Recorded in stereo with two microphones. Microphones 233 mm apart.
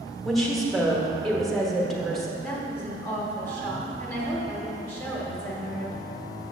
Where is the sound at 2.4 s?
10° left (ahead or behind), 1.3 m.